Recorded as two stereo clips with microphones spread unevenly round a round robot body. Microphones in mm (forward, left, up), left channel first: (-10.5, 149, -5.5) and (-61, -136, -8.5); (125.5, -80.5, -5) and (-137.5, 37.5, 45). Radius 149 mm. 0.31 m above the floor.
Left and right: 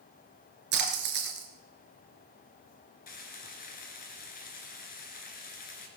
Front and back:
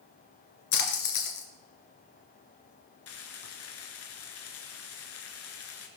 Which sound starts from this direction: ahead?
Frying, at 3.1 s.